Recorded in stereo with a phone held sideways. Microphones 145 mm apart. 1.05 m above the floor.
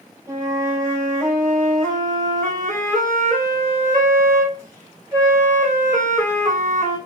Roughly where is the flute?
Right.